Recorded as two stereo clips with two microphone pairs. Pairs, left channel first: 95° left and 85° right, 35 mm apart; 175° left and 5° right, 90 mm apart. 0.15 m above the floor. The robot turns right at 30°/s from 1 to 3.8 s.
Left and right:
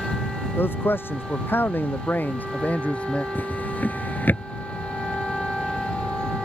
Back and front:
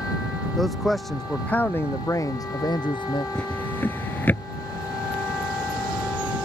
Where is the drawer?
95° left; by 4.5 s 110° left.